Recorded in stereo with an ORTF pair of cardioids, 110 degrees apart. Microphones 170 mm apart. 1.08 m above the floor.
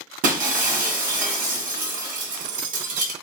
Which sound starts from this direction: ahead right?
Breaking glass, at 0.2 s.